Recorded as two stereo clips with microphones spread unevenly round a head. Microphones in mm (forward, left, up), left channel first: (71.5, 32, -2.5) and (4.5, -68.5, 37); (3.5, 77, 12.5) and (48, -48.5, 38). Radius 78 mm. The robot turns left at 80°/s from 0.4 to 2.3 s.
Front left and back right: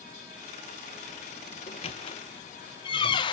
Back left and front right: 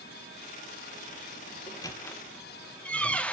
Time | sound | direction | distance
1.7 | a squeak | 65° left | 0.9 m